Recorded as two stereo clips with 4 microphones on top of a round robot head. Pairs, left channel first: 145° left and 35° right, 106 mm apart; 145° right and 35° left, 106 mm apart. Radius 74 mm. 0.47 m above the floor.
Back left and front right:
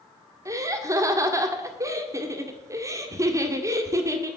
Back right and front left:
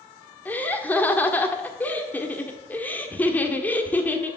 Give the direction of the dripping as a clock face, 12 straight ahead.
I don't hear dripping.